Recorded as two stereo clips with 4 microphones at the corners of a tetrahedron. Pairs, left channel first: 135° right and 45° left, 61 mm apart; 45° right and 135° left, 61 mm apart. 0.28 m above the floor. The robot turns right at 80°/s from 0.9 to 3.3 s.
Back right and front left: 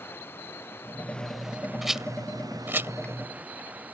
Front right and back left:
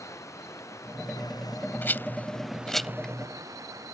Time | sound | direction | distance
0.0 | running water | 80° right | ?
1.8 | a rattle | 45° right | ?